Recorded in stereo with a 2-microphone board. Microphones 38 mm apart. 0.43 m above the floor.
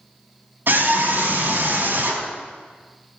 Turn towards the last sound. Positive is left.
turn(degrees=-60)  # may be behind; listen again after turning